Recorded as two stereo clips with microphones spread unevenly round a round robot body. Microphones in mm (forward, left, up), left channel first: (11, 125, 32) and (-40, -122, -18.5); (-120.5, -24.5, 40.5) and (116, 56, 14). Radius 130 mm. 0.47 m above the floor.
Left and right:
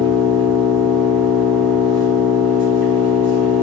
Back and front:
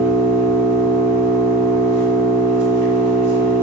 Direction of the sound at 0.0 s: 30° right.